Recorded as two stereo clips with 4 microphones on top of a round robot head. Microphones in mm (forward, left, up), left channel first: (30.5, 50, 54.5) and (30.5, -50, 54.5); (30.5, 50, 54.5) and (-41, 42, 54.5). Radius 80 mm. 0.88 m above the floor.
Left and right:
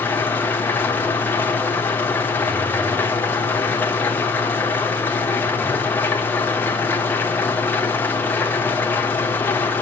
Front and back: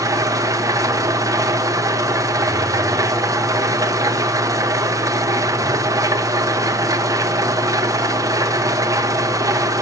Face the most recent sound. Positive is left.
turn(degrees=160)